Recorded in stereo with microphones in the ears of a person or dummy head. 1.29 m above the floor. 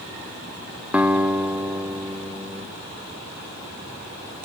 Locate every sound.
0.9 s a guitar: 10° right (ahead or behind), 1.3 m